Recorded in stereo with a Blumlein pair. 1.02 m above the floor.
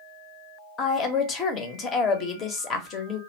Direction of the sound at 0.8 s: 30° left.